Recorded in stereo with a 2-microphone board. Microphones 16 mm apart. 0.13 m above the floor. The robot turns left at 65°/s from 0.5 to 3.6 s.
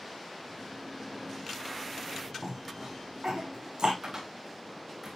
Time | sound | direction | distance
2.4 | a cough | 35° right (ahead or behind) | 6.5 m
4.0 | a cupboard door | 30° right (ahead or behind) | 6.5 m